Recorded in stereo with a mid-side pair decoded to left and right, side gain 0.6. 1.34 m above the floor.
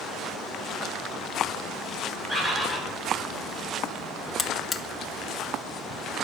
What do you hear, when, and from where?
2.3 s a bird: 5° left, 5.5 m
4.4 s a buzzer: 25° left, 0.9 m